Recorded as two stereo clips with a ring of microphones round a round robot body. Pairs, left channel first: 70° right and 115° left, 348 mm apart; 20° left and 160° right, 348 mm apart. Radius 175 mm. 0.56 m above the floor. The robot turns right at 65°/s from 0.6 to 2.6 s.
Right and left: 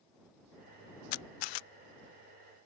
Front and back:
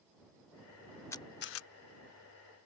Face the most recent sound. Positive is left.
turn(degrees=35)